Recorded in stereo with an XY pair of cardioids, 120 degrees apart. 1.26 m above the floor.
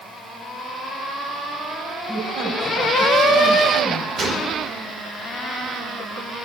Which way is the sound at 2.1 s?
60° right.